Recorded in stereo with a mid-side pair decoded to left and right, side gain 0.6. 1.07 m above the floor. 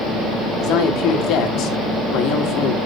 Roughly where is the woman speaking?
Ahead left.